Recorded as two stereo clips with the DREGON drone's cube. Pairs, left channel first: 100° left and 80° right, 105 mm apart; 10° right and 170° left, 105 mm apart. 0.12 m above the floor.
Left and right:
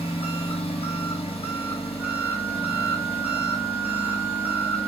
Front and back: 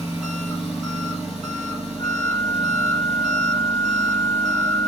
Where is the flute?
Straight ahead, 1.5 m.